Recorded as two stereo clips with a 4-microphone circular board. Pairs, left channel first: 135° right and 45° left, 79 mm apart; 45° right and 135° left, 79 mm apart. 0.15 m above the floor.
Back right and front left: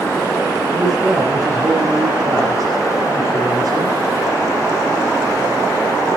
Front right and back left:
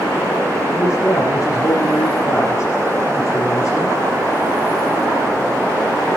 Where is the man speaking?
5° right, 5 m.